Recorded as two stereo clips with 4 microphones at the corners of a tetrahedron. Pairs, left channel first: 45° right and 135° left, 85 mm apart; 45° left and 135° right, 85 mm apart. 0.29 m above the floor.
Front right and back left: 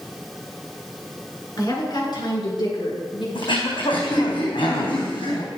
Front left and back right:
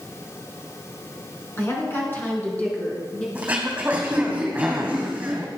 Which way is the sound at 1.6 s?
10° right.